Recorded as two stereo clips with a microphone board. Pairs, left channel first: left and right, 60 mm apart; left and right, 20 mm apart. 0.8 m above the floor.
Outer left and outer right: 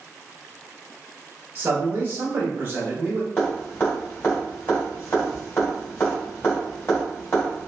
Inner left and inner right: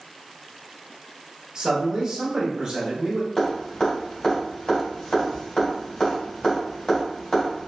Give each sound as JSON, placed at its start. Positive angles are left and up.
{"t": 1.6, "sound": "a man speaking", "side_deg": -35, "distance_m": 1.2}
{"t": 3.4, "sound": "dripping", "side_deg": 45, "distance_m": 1.8}